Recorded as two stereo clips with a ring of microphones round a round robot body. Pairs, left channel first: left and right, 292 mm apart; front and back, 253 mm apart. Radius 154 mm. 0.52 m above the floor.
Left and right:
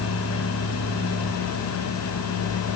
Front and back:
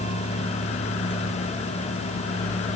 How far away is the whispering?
No whispering in this recording.